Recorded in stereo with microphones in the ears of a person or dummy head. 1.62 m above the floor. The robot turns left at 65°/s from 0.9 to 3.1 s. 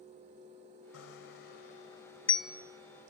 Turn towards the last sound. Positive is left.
turn(degrees=-45)  # may be behind; listen again after turning